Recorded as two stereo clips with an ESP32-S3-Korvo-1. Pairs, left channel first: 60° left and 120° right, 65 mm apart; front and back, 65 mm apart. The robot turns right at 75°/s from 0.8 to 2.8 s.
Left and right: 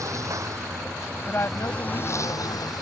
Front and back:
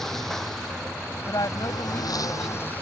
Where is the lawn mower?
85° right; by 2.8 s 65° left.